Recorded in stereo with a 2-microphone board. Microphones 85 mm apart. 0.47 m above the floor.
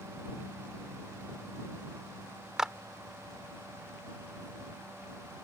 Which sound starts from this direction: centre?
A clap, at 2.6 s.